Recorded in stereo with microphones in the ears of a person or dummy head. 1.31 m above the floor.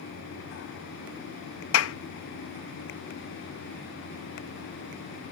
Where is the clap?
85° left.